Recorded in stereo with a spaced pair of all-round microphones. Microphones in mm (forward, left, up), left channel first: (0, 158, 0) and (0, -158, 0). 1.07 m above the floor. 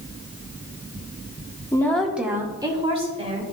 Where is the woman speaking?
10° left (ahead or behind), 1.5 m; by 3.4 s 20° right (ahead or behind), 3.5 m.